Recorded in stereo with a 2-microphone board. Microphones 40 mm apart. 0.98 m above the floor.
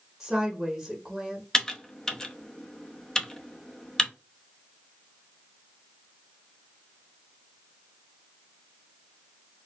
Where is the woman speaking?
5° right (ahead or behind), 1.1 m.